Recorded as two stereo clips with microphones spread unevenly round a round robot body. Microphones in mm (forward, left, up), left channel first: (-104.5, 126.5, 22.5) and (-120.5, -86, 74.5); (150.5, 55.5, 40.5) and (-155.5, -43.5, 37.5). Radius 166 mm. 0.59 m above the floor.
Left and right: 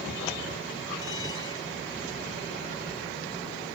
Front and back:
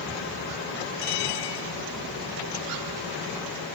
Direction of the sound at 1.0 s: 10° left.